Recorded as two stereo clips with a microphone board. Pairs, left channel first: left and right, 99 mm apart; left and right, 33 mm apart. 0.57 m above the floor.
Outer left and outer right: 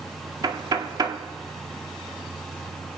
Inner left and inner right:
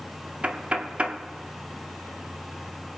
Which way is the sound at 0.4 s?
45° right (ahead or behind).